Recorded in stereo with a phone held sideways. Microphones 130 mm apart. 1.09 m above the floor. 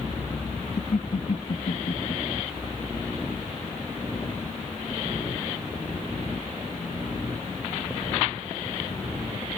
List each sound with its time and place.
0.8 s laughter: 60° left (ahead or behind), 1.2 m